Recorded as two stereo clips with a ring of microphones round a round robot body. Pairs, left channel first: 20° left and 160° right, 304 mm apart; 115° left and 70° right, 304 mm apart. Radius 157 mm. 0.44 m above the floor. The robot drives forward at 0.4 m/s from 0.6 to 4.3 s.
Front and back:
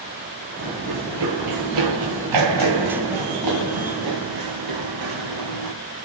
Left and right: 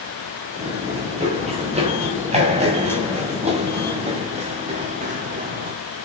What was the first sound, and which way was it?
Running footsteps, 140° right.